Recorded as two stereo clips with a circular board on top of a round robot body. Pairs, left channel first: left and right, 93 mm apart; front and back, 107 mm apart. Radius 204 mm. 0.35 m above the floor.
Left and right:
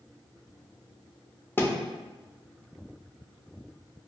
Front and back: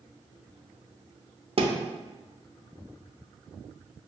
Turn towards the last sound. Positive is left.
turn(degrees=155)